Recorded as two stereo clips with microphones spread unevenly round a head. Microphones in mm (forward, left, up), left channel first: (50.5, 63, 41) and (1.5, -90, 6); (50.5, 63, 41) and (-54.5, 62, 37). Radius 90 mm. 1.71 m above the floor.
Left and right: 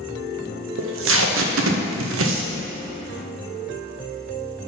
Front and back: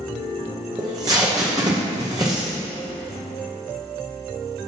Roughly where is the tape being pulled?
Right.